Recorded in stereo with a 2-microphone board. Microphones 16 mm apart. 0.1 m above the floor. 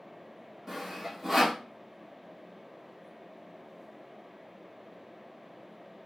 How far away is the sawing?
About 1.1 m.